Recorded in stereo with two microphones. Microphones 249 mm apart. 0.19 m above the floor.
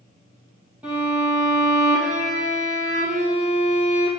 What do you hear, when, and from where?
0.8 s a violin: 5° right (ahead or behind), 2.5 m